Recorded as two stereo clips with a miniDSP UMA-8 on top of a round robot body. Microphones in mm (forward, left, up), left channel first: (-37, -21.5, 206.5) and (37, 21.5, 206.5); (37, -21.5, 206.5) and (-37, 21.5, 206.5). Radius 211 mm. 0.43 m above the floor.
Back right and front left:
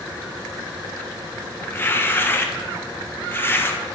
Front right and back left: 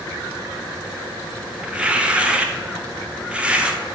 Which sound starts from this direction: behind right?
Tearing paper, at 1.6 s.